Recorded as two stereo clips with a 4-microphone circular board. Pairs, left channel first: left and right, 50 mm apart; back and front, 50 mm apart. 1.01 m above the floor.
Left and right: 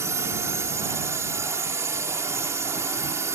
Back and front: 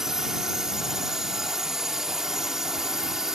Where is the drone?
85° right.